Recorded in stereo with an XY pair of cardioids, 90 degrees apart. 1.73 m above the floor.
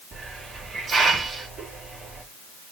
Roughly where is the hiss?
Ahead right.